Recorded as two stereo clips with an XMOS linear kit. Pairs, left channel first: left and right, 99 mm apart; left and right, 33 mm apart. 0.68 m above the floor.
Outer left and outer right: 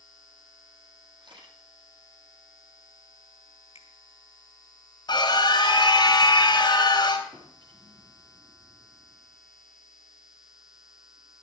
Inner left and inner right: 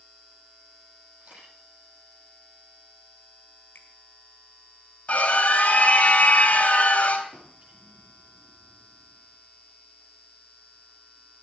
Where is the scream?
45° left (ahead or behind), 4 m.